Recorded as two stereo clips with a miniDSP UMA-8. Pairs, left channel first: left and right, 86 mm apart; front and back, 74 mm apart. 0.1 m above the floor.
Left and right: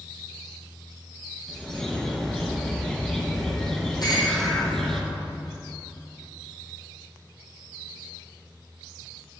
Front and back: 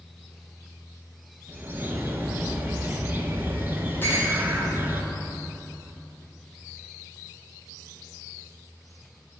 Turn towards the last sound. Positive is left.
turn(degrees=60)